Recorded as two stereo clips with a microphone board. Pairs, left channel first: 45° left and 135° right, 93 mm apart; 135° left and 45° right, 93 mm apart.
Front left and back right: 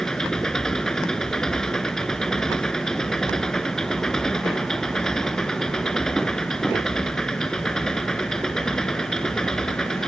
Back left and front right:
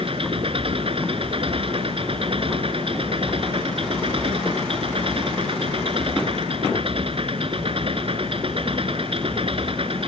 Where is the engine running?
40° right.